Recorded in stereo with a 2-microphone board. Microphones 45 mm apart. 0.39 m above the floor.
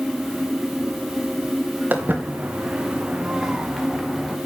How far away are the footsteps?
About 3.5 m.